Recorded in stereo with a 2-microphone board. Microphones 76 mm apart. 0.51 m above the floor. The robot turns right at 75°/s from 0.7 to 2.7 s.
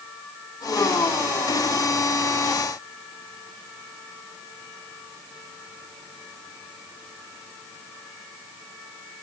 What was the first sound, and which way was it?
Only background noise.